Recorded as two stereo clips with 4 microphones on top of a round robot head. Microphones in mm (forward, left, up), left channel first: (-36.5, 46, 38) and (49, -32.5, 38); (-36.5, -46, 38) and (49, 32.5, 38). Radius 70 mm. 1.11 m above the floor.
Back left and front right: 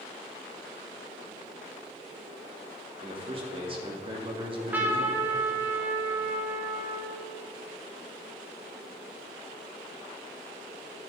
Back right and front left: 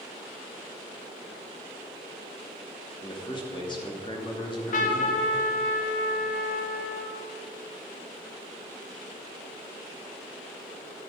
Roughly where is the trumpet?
Behind right.